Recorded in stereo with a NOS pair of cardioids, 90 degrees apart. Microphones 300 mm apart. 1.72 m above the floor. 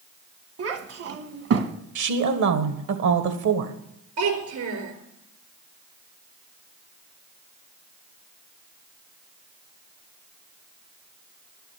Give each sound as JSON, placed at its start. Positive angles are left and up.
{"t": 0.6, "sound": "a child speaking", "azimuth_deg": -50, "distance_m": 1.7}
{"t": 1.9, "sound": "a woman speaking", "azimuth_deg": -65, "distance_m": 1.8}
{"t": 4.2, "sound": "a child speaking", "azimuth_deg": -70, "distance_m": 4.0}